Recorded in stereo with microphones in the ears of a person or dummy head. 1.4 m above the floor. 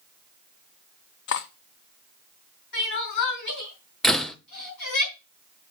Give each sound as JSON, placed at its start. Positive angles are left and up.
{"t": 1.3, "sound": "cutlery clinking", "side_deg": 50, "distance_m": 0.8}
{"t": 2.7, "sound": "crying", "side_deg": 55, "distance_m": 4.0}
{"t": 4.0, "sound": "a door slam", "side_deg": 5, "distance_m": 0.7}